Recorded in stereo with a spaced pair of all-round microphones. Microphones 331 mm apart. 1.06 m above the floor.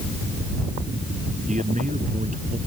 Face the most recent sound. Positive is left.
turn(degrees=-20)  # may be behind; listen again after turning